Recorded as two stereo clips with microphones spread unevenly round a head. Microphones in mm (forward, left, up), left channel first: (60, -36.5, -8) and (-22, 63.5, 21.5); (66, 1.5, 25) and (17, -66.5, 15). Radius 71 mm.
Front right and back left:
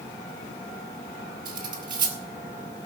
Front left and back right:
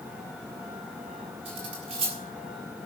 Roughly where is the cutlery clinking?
Behind.